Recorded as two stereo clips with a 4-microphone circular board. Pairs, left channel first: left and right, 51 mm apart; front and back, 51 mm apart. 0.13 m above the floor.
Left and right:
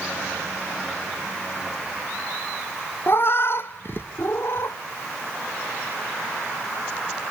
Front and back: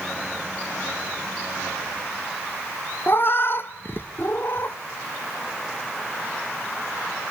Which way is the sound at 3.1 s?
45° left.